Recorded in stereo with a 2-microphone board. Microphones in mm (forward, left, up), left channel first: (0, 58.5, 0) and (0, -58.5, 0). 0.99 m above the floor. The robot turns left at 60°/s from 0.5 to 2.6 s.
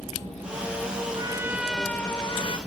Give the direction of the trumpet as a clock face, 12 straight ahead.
5 o'clock.